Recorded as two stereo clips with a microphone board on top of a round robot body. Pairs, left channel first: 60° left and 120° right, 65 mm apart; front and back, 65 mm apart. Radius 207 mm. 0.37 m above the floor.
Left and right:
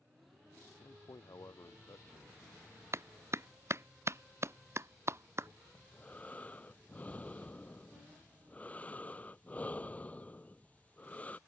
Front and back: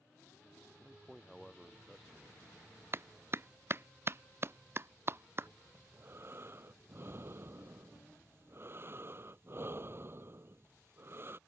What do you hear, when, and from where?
0.8 s a man speaking: 90° left
2.9 s a clap: 145° right
5.8 s breathing: 125° left